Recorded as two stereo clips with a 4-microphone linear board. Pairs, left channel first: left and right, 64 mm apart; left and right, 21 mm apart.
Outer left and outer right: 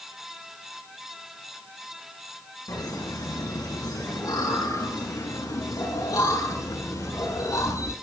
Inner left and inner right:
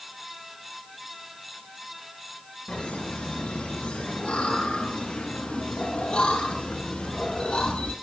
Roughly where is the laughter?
Left.